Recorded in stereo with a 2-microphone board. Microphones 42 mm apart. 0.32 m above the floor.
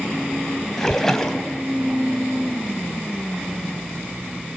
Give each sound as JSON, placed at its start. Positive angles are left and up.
{"t": 0.8, "sound": "a splash", "side_deg": 10, "distance_m": 2.5}